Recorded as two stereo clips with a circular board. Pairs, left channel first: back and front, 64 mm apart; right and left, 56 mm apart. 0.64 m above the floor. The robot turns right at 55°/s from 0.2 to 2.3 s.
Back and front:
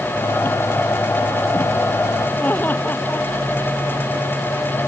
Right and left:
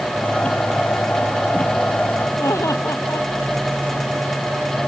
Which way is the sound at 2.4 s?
120° right.